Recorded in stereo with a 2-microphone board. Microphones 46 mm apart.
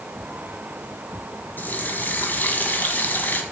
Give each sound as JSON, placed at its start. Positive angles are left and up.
{"t": 1.6, "sound": "a running tap", "side_deg": 40, "distance_m": 1.7}